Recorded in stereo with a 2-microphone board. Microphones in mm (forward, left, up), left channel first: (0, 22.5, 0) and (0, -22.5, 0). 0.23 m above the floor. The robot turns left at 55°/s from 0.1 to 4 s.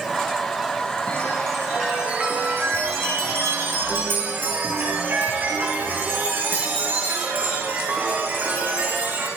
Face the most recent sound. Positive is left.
turn(degrees=-130)